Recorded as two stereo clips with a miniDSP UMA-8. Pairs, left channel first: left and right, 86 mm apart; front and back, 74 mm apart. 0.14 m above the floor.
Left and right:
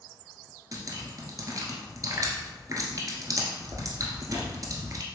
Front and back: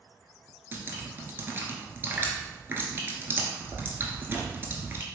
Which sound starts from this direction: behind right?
Dripping, at 0.7 s.